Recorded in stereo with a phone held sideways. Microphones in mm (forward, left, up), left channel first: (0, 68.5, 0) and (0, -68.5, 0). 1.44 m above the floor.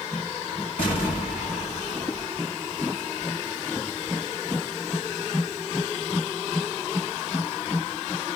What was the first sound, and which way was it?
An explosion, 45° left (ahead or behind).